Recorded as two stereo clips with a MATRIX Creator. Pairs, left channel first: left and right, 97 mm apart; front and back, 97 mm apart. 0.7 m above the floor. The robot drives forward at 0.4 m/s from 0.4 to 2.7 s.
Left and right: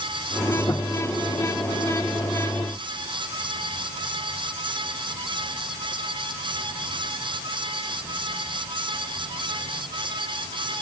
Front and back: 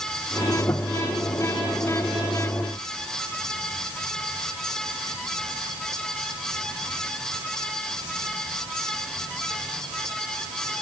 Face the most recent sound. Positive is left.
No sound to turn to.